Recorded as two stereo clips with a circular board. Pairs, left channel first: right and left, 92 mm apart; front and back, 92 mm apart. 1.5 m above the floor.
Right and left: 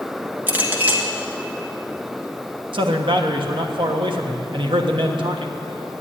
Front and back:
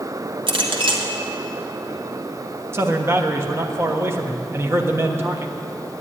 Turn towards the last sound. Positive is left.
turn(degrees=120)